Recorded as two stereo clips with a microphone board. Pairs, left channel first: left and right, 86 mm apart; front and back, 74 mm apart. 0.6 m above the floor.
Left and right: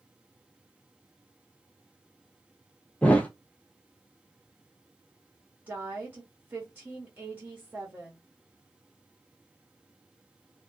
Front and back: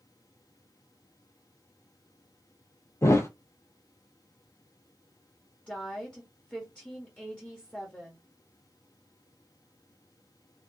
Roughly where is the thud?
Ahead left.